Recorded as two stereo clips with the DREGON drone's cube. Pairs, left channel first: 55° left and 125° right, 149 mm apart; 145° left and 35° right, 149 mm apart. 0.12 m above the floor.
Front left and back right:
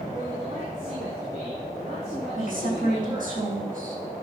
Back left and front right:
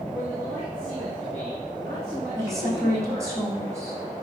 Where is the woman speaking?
105° right, 4.5 m.